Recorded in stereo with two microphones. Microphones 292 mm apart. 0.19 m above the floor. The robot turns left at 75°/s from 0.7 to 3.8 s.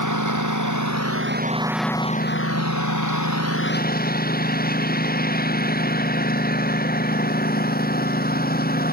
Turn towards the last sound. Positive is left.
turn(degrees=30)